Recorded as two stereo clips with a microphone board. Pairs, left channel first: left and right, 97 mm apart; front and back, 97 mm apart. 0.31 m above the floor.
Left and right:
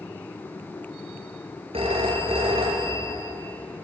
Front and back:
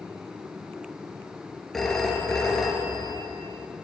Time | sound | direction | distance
1.7 | a phone ringing | 85° right | 3.5 m